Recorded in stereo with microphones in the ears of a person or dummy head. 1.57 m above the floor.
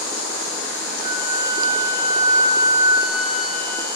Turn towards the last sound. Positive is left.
turn(degrees=-25)  # may be behind; listen again after turning